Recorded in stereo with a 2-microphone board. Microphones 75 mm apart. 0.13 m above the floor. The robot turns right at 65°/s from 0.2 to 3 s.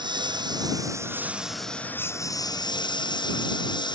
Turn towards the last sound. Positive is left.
turn(degrees=85)